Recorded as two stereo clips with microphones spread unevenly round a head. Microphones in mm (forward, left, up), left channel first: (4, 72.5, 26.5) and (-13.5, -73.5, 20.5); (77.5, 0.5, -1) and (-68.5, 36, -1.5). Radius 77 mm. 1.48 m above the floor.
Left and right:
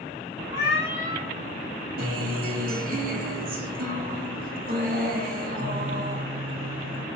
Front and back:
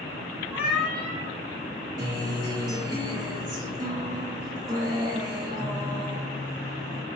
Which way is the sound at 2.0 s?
125° right.